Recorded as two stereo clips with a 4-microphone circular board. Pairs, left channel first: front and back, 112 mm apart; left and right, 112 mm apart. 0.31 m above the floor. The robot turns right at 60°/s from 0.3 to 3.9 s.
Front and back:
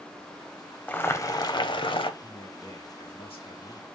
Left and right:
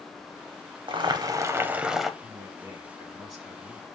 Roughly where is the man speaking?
Right.